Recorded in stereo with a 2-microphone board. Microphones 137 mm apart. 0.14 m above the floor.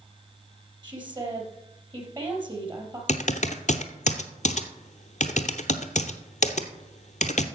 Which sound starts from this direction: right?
A woman speaking, at 0.8 s.